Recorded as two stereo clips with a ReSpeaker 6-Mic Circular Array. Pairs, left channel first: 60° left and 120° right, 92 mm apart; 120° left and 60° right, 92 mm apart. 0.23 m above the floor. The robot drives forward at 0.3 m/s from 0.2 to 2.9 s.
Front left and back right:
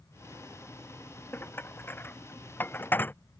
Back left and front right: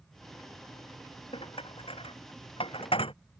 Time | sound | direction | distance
1.3 | dishes clattering | 125° left | ?